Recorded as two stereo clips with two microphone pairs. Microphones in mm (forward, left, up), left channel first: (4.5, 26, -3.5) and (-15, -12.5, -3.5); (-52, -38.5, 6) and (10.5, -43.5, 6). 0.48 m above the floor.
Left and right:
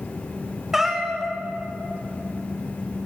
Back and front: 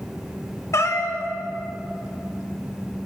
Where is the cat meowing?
160° left, 0.7 m.